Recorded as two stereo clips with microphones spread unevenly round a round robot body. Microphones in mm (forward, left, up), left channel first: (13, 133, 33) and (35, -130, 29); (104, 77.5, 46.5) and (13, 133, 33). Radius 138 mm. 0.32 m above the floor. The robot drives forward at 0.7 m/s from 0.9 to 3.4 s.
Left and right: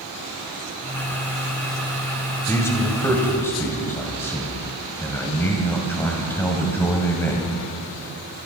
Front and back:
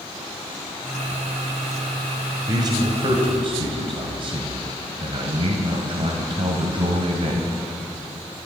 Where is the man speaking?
170° left, 1.3 m; by 7.5 s 175° left, 1.8 m.